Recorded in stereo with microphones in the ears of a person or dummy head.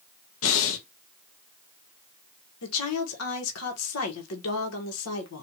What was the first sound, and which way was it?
Breathing, 70° left (ahead or behind).